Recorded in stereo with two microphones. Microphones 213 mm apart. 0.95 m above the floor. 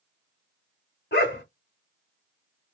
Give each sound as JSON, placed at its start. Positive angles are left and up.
{"t": 1.1, "sound": "a dog barking", "side_deg": 55, "distance_m": 1.1}